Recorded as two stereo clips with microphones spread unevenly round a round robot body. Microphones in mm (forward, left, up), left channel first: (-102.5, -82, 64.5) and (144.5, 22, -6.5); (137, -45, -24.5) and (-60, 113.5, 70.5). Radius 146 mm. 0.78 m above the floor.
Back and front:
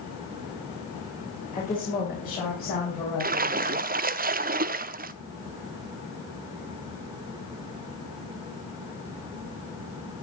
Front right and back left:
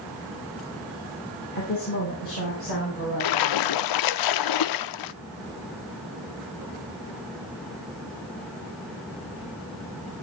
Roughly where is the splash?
Ahead right.